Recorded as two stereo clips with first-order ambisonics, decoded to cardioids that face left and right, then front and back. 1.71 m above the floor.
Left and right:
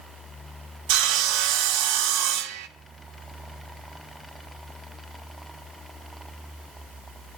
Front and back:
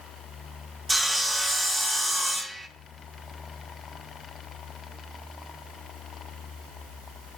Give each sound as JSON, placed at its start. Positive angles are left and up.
{"t": 0.9, "sound": "sawing", "azimuth_deg": -95, "distance_m": 0.7}